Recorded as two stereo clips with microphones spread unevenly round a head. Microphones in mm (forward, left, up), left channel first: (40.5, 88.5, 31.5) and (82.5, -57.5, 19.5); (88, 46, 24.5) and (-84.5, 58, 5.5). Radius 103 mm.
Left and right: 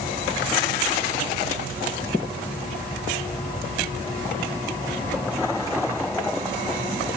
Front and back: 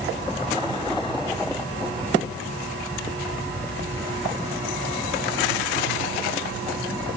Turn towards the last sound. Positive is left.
No sound to turn to.